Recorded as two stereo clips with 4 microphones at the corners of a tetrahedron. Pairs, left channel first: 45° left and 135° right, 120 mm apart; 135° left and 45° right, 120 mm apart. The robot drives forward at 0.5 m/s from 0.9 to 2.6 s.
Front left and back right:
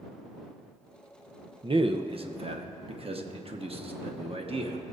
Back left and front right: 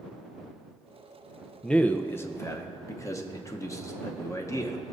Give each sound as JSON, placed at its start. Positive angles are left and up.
{"t": 1.6, "sound": "a man speaking", "azimuth_deg": -140, "distance_m": 0.5}